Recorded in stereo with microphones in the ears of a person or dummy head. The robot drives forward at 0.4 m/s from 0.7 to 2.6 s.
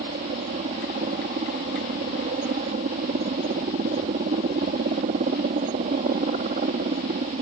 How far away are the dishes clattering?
No dishes clattering in this recording.